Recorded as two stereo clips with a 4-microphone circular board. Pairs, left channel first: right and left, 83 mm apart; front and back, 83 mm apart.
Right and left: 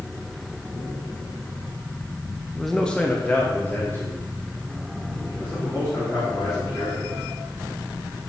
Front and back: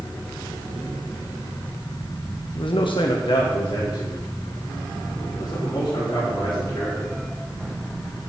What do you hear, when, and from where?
2.5 s a man speaking: 5° left, 0.9 m; by 7.2 s 40° right, 6 m